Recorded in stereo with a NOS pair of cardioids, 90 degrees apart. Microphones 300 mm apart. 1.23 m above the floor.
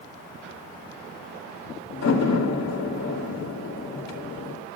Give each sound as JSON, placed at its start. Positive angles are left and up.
{"t": 1.9, "sound": "a door slam", "azimuth_deg": 60, "distance_m": 3.0}